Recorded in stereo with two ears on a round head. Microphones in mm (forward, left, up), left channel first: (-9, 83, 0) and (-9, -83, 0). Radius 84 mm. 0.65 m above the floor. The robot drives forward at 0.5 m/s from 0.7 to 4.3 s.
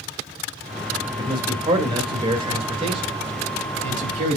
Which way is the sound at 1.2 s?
25° right (ahead or behind).